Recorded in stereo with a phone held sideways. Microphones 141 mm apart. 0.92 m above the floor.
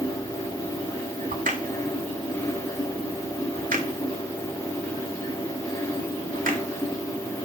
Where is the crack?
75° right (ahead or behind), 1.4 m.